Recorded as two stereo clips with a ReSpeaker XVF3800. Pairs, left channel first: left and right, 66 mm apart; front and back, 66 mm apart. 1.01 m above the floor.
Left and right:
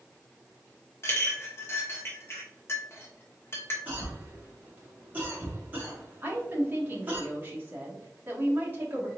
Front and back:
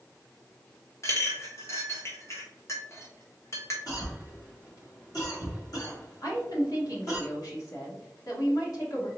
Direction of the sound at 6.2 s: 30° right.